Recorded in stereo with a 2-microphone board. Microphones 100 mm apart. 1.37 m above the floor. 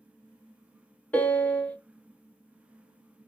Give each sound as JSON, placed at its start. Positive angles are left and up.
{"t": 1.1, "sound": "a piano", "side_deg": 15, "distance_m": 0.6}